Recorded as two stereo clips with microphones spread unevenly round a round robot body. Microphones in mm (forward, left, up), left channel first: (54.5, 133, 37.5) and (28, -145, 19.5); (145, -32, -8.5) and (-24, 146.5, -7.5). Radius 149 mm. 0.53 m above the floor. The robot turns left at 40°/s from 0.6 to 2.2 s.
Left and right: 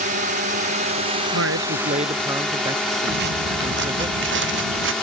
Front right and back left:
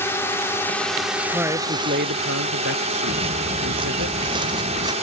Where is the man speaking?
140° right; by 4.1 s 175° right.